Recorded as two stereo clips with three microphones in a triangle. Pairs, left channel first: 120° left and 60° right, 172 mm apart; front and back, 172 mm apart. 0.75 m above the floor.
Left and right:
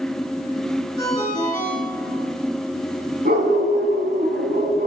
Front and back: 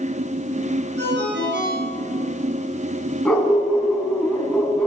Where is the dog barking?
85° right, 3 m.